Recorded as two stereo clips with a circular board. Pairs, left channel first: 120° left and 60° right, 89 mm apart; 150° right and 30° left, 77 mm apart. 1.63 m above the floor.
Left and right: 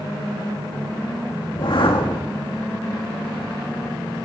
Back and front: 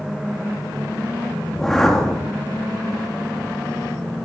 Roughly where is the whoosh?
Behind left.